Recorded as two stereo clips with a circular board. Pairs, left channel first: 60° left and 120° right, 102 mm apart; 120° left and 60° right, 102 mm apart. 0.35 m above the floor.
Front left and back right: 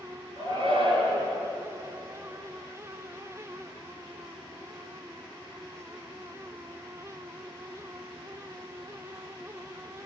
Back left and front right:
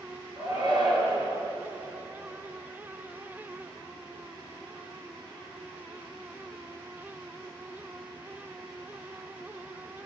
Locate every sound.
0.4 s a shout: 100° right, 4.5 m